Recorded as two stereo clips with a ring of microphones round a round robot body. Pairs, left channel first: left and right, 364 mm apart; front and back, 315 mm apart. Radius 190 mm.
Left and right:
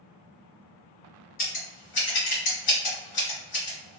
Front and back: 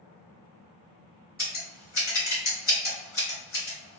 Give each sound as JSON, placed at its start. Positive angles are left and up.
{"t": 1.4, "sound": "scissors", "azimuth_deg": 60, "distance_m": 1.8}